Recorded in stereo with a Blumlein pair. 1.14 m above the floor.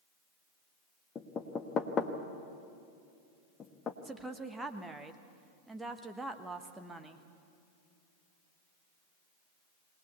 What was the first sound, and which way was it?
Knocking, 25° left.